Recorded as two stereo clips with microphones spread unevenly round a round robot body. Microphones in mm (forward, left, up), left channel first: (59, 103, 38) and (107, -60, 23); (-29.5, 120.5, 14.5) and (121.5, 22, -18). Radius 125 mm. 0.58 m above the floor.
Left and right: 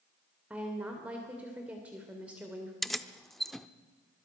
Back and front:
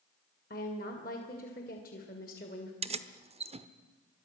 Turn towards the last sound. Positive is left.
turn(degrees=15)